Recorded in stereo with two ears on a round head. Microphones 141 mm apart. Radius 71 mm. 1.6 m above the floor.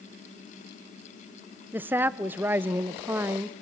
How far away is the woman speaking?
About 0.6 m.